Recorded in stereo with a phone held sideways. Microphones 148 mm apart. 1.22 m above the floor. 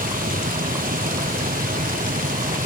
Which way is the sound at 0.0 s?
70° right (ahead or behind).